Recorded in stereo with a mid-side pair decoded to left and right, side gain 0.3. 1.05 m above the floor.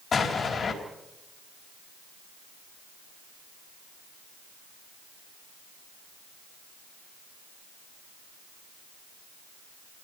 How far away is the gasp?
No gasp in this recording.